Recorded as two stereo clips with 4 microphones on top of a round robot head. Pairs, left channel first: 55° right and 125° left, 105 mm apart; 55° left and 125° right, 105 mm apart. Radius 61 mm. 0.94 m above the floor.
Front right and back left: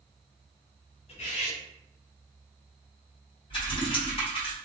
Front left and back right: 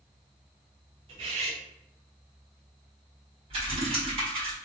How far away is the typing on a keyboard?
About 1.5 m.